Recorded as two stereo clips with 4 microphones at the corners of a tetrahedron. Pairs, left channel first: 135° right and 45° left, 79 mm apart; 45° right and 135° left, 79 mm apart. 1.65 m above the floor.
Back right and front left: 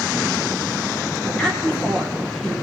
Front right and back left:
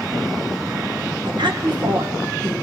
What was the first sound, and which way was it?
A woman speaking, 145° left.